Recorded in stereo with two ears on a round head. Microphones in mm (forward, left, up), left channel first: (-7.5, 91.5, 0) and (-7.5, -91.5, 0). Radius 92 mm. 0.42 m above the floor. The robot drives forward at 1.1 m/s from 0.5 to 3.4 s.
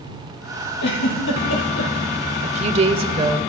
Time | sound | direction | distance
0.8 | a giggle | 60° left (ahead or behind) | 5.5 m
2.4 | a woman speaking | 35° right (ahead or behind) | 1.1 m